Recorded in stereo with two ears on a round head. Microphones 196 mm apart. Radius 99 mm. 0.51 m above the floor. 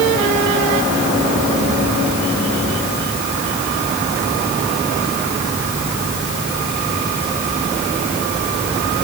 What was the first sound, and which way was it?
Only background noise.